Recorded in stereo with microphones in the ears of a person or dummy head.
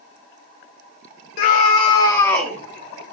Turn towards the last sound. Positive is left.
turn(degrees=-10)  # may be behind; listen again after turning